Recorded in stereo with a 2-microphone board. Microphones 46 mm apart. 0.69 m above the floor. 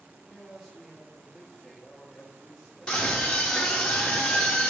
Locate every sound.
0.2 s a man speaking: 20° right (ahead or behind), 1.0 m
2.9 s a scream: 15° left (ahead or behind), 0.6 m